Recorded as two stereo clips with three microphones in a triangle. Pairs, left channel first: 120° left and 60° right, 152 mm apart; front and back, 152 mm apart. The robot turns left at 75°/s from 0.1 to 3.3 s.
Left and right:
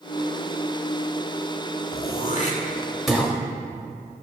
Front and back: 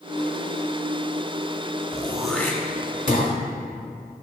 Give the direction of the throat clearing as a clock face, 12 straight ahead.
8 o'clock.